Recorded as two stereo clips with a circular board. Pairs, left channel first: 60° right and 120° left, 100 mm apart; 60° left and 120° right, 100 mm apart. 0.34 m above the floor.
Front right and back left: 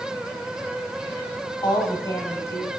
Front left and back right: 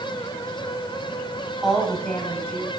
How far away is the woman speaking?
About 2.0 m.